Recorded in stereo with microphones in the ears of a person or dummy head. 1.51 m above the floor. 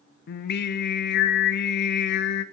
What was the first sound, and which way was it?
Singing, 60° left (ahead or behind).